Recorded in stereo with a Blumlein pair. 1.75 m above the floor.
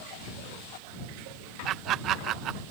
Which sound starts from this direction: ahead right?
Laughter, at 1.6 s.